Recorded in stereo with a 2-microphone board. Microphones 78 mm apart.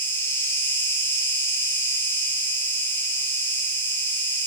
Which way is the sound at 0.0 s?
30° left (ahead or behind).